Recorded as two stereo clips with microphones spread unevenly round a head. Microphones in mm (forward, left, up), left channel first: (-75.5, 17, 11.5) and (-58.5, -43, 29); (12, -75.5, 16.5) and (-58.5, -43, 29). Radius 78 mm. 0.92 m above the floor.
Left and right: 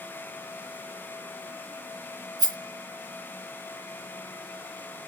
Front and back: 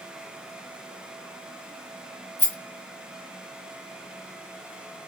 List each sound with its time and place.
2.4 s a rattle: 90° right, 1.5 m